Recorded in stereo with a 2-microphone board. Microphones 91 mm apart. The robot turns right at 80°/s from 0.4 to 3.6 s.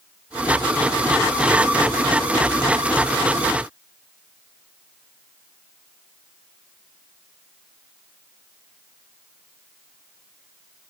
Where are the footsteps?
I don't hear footsteps.